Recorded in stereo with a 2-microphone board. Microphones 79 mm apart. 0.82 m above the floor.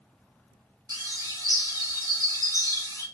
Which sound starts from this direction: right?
A bird, at 0.9 s.